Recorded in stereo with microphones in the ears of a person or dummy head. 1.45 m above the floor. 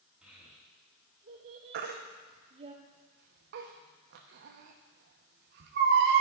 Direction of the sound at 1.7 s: 50° right (ahead or behind).